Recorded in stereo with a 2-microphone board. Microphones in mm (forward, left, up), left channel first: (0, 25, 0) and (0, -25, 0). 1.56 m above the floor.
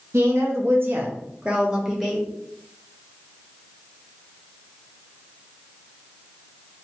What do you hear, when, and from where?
0.1 s a woman speaking: 70° right (ahead or behind), 0.8 m; by 2.2 s centre (ahead or behind), 1.2 m